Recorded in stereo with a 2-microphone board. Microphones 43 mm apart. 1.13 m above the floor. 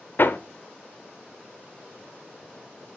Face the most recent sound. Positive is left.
turn(degrees=50)  # may be behind; listen again after turning